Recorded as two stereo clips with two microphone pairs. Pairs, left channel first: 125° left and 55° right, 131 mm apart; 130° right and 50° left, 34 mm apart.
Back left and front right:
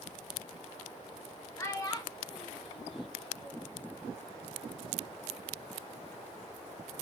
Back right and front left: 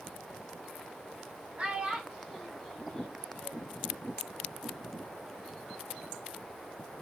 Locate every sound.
1.6 s a child speaking: 70° left, 0.9 m; by 3.8 s 170° left, 1.2 m